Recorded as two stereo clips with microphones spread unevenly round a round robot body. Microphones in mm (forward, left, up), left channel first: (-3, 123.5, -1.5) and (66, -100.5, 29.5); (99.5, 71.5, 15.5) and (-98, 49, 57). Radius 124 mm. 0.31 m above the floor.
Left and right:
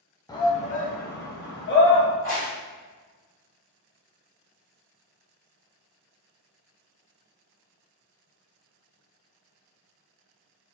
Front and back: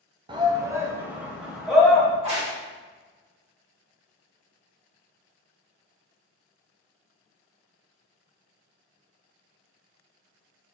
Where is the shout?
125° left, 0.9 m; by 2.1 s 90° left, 1.7 m.